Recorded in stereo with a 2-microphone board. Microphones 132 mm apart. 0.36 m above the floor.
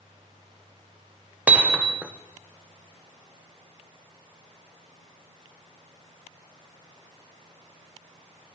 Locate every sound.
1.5 s hammering: 10° right (ahead or behind), 0.8 m